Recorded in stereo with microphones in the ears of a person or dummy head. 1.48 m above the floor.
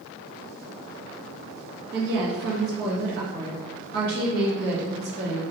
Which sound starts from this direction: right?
A woman speaking, at 1.9 s.